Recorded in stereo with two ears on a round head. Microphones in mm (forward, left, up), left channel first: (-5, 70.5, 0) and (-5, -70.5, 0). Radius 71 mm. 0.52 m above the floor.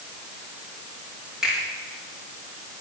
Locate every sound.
1.4 s a finger snap: 5° right (ahead or behind), 8 m